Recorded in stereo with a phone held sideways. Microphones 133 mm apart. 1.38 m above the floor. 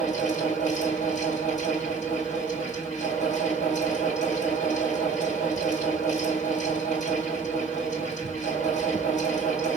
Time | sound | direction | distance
0.0 | a fan | 70° left (ahead or behind) | 3 m